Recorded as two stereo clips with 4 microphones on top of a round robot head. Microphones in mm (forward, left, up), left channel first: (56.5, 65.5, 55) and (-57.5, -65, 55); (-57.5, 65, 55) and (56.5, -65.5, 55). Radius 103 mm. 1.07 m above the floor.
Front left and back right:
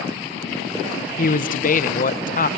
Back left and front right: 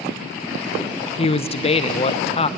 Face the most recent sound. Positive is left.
turn(degrees=80)